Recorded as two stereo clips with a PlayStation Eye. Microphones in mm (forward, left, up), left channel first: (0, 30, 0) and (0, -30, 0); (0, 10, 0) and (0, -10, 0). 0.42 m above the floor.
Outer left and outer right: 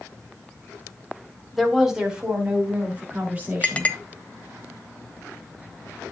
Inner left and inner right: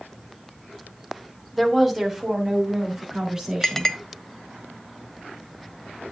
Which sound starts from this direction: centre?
A woman speaking, at 1.5 s.